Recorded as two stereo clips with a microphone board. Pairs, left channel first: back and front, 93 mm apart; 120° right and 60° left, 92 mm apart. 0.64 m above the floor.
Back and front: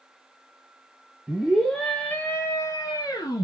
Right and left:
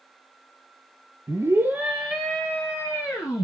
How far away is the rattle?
I don't hear a rattle.